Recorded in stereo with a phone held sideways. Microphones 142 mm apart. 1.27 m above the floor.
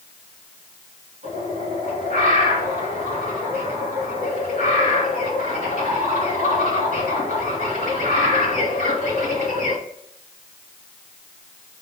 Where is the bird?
75° right (ahead or behind), 3 m.